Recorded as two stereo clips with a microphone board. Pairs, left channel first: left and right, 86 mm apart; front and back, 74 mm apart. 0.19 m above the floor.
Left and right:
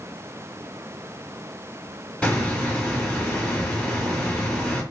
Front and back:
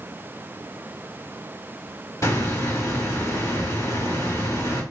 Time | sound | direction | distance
2.2 | a hiss | 10° left | 2 m